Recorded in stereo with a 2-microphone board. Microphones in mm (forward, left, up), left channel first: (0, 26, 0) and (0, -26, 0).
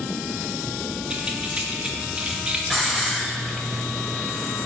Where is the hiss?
5° left (ahead or behind), 1.5 m.